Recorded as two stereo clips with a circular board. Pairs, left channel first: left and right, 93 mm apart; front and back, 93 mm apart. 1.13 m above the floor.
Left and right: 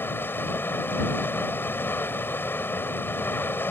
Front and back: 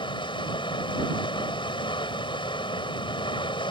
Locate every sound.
0.0 s running water: 25° left